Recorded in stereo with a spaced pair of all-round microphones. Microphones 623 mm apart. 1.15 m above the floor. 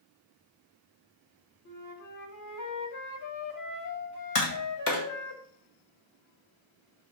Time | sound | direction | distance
1.6 | a flute | 30° left (ahead or behind) | 1.0 m
4.3 | tapping | 55° left (ahead or behind) | 1.6 m